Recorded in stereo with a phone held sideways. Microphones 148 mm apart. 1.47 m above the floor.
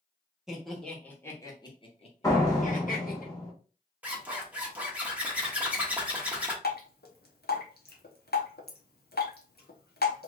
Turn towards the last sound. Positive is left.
turn(degrees=85)